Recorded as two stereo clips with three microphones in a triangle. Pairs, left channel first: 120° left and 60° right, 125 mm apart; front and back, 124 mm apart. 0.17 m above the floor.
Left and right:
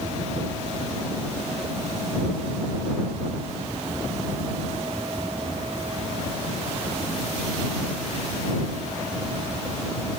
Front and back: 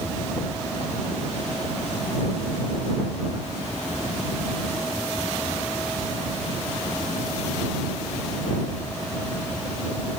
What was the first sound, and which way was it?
Only background noise.